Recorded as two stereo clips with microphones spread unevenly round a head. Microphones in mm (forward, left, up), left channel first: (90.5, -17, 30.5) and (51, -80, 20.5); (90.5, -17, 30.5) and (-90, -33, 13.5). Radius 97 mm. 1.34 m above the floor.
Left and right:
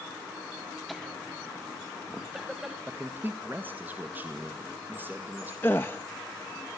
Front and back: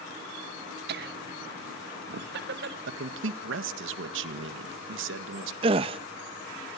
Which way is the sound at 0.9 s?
150° left.